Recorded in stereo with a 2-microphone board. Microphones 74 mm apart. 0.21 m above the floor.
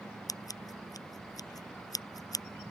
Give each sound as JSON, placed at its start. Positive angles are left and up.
{"t": 0.3, "sound": "scissors", "side_deg": 55}